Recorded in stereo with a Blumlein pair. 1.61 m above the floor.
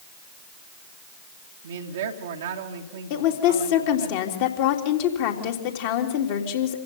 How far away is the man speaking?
About 2 m.